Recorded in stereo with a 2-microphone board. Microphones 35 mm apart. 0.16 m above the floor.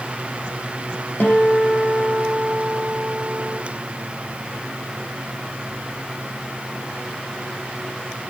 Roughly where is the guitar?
Left.